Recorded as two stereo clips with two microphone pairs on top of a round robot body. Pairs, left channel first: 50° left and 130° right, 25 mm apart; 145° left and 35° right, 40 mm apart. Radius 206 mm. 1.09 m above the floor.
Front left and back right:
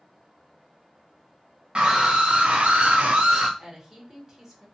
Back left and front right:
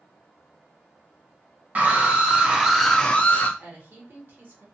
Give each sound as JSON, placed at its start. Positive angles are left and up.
{"t": 1.8, "sound": "a scream", "azimuth_deg": -80, "distance_m": 1.1}
{"t": 3.6, "sound": "a woman speaking", "azimuth_deg": -55, "distance_m": 1.4}